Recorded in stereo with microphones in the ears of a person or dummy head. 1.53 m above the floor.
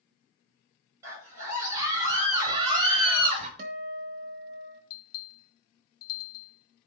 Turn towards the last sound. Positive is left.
turn(degrees=55)  # may be behind; listen again after turning